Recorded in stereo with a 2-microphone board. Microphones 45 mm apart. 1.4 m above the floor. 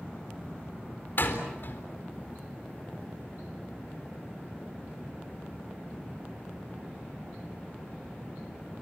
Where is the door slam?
55° left (ahead or behind), 4 m.